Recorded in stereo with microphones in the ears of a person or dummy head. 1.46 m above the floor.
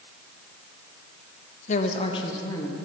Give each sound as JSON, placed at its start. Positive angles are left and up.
{"t": 1.7, "sound": "a woman speaking", "side_deg": 45, "distance_m": 1.1}